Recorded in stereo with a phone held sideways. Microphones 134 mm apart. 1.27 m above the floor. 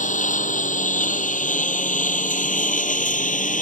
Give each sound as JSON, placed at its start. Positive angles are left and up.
{"t": 0.0, "sound": "a lawn mower", "side_deg": 75}